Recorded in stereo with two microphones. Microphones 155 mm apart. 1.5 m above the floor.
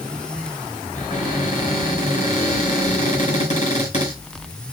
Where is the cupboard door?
50° left (ahead or behind), 6.5 m.